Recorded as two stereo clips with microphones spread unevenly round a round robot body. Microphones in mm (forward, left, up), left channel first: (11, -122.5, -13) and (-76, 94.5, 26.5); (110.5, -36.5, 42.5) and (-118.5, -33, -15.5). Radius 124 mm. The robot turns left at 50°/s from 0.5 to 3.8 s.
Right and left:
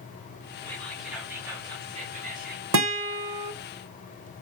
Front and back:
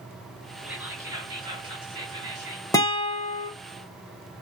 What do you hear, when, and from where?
0.6 s whispering: 125° right, 1.3 m; by 2.6 s 135° left, 1.3 m
2.7 s a guitar: 85° left, 0.6 m; by 3.5 s 45° left, 0.6 m